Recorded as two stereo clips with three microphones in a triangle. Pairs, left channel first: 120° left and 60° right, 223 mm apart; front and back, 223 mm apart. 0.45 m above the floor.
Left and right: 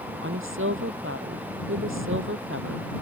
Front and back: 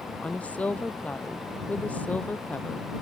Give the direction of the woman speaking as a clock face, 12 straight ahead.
3 o'clock.